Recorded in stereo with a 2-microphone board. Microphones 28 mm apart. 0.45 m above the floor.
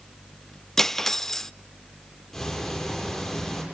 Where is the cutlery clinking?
15° left (ahead or behind), 0.6 m.